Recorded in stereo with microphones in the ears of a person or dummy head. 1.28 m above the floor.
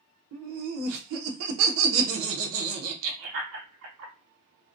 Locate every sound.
0.3 s laughter: 70° right (ahead or behind), 0.7 m